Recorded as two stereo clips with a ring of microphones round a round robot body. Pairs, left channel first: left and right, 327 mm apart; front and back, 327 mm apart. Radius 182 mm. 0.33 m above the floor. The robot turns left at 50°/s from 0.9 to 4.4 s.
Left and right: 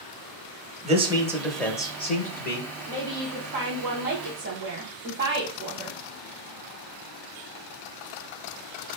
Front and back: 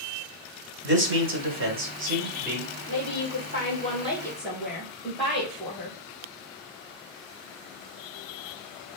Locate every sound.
0.8 s a man speaking: 150° right, 1.0 m; by 2.7 s 120° left, 1.0 m
2.9 s a woman speaking: 10° right, 1.7 m; by 6.0 s 85° right, 1.7 m